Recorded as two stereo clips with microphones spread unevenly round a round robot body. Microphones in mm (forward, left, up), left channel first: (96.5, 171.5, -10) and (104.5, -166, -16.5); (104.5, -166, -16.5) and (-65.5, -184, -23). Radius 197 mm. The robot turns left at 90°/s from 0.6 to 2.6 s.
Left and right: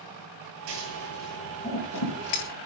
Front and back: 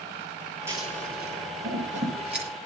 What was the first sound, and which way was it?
Scissors, 100° right.